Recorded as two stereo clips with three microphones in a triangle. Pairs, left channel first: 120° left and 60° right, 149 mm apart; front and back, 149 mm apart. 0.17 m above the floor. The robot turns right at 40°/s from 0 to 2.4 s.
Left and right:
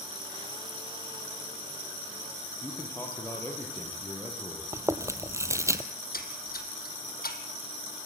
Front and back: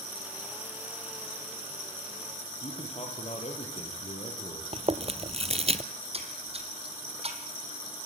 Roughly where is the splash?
Behind left.